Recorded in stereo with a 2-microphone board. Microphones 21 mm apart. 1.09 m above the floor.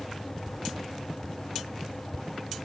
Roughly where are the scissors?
No scissors in this recording.